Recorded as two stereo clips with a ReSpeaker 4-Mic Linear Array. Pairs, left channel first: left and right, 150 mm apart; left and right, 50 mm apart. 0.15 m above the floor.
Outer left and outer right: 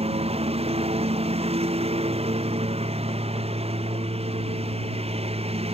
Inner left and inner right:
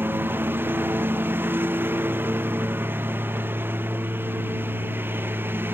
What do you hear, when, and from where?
0.0 s a lawn mower: 45° right (ahead or behind)